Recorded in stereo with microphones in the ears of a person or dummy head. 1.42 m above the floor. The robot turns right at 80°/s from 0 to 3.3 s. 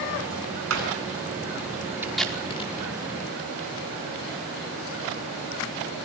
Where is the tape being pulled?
15° right (ahead or behind), 5 m; by 2.7 s 45° left (ahead or behind), 5 m.